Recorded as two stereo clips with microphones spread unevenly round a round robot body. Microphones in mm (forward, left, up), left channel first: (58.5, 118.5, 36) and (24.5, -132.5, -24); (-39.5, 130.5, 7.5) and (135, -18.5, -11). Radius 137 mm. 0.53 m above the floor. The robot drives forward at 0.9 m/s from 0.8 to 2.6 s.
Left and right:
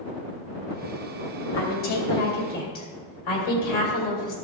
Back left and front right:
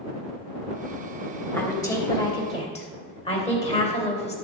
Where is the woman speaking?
60° left, 3 m; by 4.3 s 75° left, 3 m.